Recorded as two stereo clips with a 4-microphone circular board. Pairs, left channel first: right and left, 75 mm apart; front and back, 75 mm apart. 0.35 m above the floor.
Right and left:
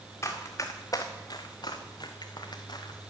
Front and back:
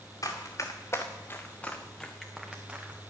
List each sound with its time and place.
0.2 s running footsteps: 40° right, 2 m; by 3.1 s 115° right, 1.9 m